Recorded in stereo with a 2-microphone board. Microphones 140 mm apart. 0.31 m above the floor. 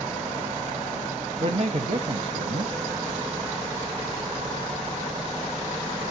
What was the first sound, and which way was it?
A man speaking, 45° right (ahead or behind).